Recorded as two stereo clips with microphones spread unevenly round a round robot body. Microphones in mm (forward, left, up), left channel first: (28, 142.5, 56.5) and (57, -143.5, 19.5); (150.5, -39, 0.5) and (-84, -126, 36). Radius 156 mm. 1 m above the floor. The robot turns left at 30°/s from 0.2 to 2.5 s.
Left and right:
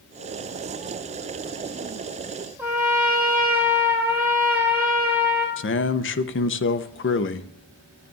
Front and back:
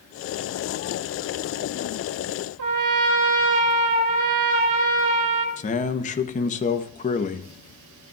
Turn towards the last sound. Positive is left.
turn(degrees=55)